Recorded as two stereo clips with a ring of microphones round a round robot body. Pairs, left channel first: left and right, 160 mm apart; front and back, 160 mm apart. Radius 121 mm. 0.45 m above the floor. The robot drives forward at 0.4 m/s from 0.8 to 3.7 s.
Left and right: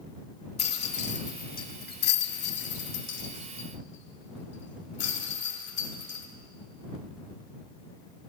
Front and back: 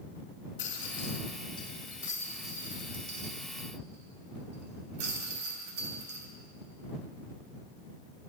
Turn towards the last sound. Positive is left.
turn(degrees=130)